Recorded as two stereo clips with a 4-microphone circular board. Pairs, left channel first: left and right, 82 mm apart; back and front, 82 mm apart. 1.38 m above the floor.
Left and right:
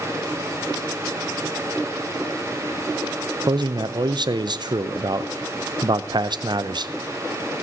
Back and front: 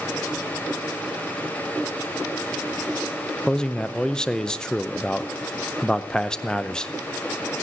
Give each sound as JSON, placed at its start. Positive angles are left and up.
{"t": 3.5, "sound": "a man speaking", "azimuth_deg": -100, "distance_m": 0.6}